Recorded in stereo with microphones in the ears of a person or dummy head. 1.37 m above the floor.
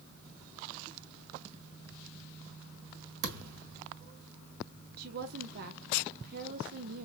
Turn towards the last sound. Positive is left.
turn(degrees=-60)  # may be behind; listen again after turning